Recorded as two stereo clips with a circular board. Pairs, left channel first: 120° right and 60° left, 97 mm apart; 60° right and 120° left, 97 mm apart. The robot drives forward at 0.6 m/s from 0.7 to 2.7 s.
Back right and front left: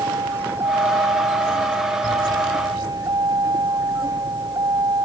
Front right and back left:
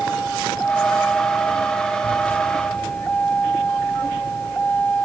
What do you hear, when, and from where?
0.0 s a vehicle: 15° left